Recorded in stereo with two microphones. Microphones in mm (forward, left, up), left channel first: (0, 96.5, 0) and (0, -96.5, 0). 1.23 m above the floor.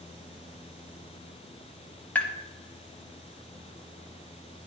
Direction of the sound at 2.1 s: 10° left (ahead or behind).